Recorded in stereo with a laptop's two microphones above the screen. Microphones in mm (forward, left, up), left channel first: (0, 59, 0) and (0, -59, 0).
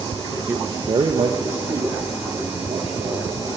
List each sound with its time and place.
0.5 s a man speaking: 15° right (ahead or behind), 0.9 m; by 3.5 s 65° right (ahead or behind), 3.5 m